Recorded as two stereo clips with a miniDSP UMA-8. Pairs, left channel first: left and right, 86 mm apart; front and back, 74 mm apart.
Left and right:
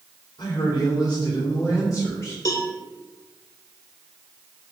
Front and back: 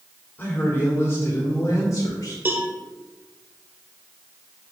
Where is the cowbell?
125° left, 1.2 m.